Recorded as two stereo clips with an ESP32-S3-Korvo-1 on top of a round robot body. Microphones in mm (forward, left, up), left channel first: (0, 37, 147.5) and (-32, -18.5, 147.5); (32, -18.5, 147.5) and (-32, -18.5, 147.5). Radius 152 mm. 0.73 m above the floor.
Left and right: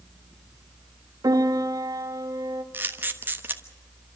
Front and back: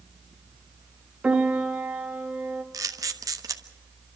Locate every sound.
1.2 s a piano: 115° right, 1.9 m
2.7 s a camera shutter: 175° right, 1.5 m